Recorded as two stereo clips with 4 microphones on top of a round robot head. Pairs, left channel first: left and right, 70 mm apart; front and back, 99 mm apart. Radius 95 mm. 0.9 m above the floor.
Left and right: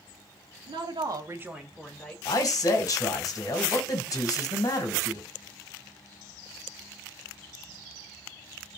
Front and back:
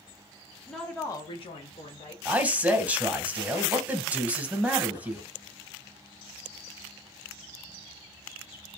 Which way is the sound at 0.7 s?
90° right.